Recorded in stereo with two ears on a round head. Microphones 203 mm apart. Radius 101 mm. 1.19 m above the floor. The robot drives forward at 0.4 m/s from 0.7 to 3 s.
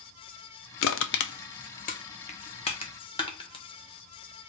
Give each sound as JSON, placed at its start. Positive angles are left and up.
{"t": 0.8, "sound": "crushing", "side_deg": 60, "distance_m": 0.5}